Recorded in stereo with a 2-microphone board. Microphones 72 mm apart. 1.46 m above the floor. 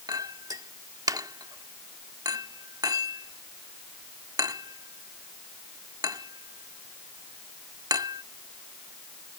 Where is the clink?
65° right (ahead or behind).